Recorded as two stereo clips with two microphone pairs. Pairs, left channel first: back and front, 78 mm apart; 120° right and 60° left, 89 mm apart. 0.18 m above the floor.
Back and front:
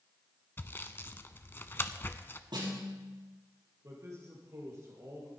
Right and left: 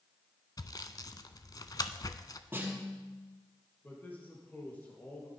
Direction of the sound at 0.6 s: 135° right.